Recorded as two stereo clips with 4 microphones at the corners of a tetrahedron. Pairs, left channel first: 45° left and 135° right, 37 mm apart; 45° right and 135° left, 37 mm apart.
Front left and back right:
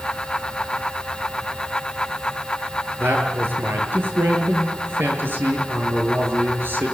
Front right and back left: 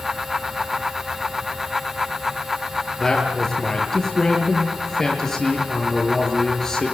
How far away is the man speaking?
About 6.5 m.